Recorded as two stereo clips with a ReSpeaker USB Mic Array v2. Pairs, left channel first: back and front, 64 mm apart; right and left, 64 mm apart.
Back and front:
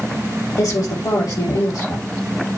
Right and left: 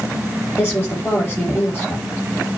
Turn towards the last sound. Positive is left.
turn(degrees=-150)